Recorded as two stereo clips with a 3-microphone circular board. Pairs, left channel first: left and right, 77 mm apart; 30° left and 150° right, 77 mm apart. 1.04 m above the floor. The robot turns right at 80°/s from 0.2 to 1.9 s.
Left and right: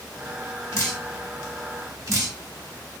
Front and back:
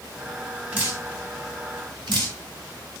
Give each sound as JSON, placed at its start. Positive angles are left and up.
{"t": 0.7, "sound": "dripping", "azimuth_deg": 140, "distance_m": 1.6}